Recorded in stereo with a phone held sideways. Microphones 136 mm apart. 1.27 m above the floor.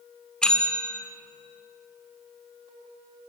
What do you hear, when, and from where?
0.4 s a bell: 5° left (ahead or behind), 2.5 m